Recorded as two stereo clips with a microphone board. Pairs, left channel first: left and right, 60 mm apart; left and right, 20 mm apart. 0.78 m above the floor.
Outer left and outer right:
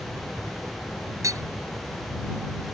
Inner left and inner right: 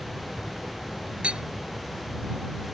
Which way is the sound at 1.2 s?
70° right (ahead or behind).